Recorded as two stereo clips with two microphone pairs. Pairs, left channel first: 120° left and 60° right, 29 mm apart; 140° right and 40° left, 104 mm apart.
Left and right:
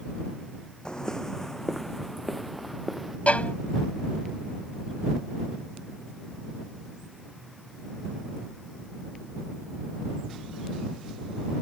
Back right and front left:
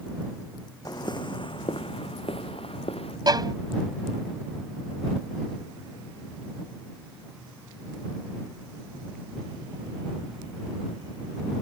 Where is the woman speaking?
No woman speaking in this recording.